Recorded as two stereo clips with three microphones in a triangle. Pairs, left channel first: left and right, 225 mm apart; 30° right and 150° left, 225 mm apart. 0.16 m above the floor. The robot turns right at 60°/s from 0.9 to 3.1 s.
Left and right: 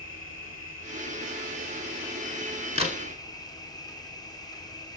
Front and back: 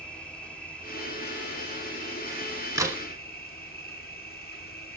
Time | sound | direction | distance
0.0 | an insect | 115° right | 1.4 m
2.8 | a crack | 140° right | 1.1 m